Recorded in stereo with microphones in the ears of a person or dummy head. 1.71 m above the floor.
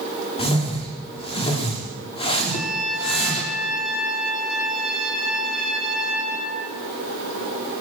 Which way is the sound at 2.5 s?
Centre (ahead or behind).